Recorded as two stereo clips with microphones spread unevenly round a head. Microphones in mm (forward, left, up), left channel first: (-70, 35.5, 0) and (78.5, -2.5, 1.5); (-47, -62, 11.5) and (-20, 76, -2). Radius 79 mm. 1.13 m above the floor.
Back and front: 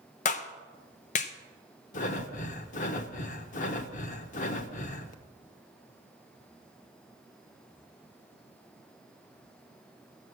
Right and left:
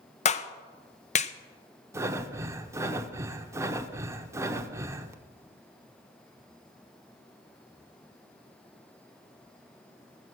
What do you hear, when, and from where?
0.2 s a clap: 145° right, 0.7 m
1.9 s breathing: 150° left, 0.9 m